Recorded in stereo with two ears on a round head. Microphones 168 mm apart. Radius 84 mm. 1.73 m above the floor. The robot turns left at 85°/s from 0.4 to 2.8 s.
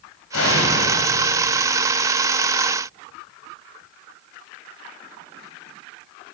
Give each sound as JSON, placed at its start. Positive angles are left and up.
{"t": 0.3, "sound": "an explosion", "azimuth_deg": 90, "distance_m": 8.0}